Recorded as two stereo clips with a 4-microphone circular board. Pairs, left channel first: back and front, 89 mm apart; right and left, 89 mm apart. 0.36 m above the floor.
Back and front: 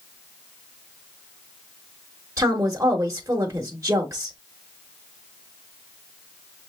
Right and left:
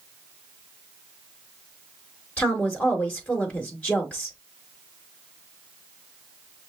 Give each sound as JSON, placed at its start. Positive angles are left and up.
{"t": 2.4, "sound": "a woman speaking", "azimuth_deg": -25, "distance_m": 1.0}